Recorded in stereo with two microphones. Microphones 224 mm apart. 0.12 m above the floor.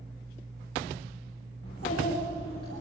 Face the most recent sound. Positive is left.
turn(degrees=80)